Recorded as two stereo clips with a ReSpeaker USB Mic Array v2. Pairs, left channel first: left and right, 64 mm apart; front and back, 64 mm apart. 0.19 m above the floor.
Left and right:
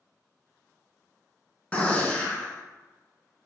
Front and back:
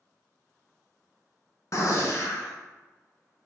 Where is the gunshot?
25° left, 0.6 m.